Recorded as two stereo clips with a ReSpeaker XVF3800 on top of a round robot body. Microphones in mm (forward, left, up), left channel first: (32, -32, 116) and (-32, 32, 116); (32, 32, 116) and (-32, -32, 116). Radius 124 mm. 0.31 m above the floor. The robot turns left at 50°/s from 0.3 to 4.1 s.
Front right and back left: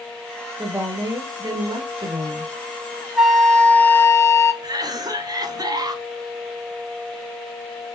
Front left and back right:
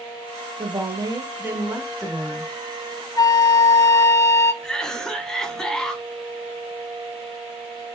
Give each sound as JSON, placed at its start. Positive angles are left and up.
{"t": 0.6, "sound": "a woman speaking", "azimuth_deg": -150, "distance_m": 1.4}
{"t": 3.2, "sound": "a flute", "azimuth_deg": 50, "distance_m": 1.0}
{"t": 4.6, "sound": "a cough", "azimuth_deg": 125, "distance_m": 1.5}